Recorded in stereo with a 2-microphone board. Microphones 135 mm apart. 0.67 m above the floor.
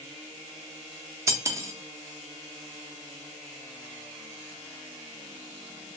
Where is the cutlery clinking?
20° right (ahead or behind), 0.5 m.